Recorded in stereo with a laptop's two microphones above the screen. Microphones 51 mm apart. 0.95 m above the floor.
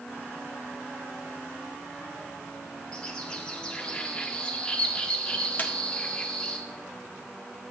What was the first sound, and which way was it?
A bird, 20° left (ahead or behind).